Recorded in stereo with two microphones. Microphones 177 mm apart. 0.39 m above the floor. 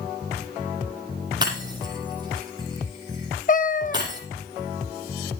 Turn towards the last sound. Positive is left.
turn(degrees=50)  # may be behind; listen again after turning